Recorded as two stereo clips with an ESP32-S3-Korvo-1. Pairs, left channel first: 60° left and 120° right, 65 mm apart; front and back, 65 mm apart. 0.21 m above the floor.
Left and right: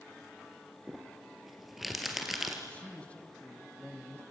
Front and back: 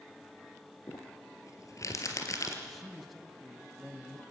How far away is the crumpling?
About 3 m.